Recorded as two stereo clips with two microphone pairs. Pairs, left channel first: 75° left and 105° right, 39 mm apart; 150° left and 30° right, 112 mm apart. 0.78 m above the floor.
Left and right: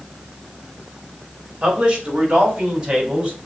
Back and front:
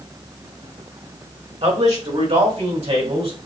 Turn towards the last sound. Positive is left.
turn(degrees=-40)